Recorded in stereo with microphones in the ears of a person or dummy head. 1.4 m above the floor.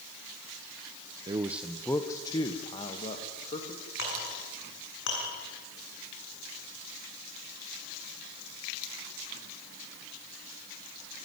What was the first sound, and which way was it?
A man speaking, 25° right (ahead or behind).